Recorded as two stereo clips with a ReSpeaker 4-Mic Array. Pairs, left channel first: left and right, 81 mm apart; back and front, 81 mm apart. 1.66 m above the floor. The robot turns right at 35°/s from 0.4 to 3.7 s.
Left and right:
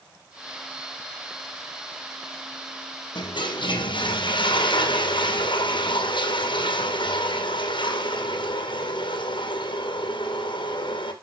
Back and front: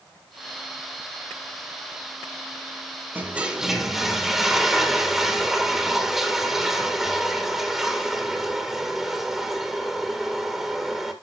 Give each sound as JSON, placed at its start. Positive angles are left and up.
{"t": 3.1, "sound": "a toilet flushing", "azimuth_deg": 70, "distance_m": 1.8}